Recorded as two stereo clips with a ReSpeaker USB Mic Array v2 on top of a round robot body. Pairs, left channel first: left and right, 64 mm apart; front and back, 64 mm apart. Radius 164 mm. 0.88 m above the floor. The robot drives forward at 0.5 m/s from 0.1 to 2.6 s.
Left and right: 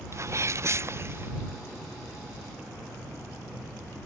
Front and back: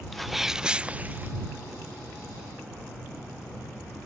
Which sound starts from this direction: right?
A sneeze, at 0.1 s.